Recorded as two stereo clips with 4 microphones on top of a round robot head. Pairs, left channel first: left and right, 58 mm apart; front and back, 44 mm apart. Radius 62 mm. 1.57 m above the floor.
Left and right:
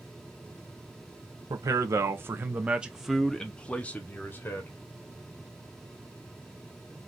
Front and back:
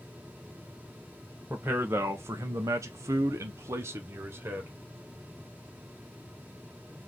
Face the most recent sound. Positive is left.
turn(degrees=140)